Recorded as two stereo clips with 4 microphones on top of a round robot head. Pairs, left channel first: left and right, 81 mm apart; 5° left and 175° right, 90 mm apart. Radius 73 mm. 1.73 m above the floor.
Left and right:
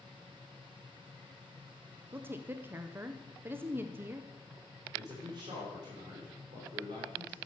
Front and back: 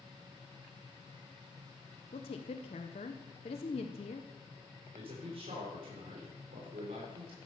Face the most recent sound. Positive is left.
turn(degrees=-140)